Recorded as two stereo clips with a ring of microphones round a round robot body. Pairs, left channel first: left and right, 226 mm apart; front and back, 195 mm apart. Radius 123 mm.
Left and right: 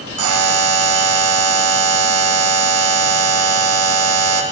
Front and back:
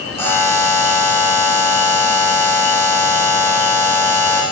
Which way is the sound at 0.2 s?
80° right.